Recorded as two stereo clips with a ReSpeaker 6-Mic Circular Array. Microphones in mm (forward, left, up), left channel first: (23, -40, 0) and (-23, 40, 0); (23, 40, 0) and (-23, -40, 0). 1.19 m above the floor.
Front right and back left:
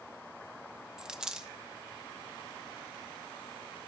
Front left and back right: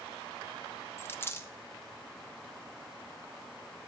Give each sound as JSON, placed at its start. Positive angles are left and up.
{"t": 1.0, "sound": "a dropped coin", "azimuth_deg": 45, "distance_m": 0.6}